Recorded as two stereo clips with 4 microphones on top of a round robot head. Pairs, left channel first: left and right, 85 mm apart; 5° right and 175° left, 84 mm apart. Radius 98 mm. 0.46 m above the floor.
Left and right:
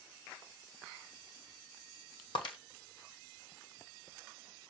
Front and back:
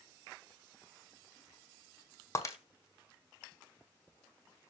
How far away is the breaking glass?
About 1.8 m.